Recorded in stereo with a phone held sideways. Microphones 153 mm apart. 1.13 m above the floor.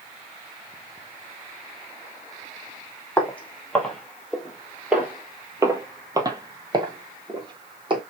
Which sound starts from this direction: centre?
Footsteps, at 3.2 s.